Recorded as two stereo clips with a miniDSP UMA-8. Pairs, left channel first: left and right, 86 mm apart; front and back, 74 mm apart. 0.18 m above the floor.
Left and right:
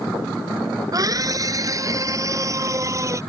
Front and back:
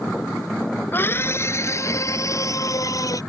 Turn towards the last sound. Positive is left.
turn(degrees=-40)